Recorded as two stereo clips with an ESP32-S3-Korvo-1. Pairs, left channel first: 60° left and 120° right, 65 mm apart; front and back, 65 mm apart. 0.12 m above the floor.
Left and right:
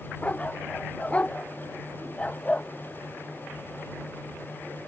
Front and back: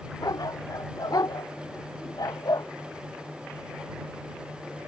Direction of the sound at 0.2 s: 10° right.